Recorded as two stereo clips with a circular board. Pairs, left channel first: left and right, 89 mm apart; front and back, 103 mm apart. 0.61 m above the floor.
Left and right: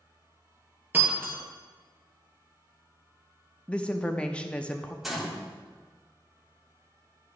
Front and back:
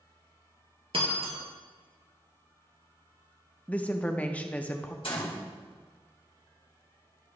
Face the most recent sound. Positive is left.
turn(degrees=-5)